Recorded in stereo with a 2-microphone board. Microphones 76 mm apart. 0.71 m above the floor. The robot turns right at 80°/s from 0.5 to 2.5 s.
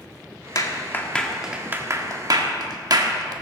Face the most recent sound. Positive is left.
turn(degrees=-60)  # may be behind; listen again after turning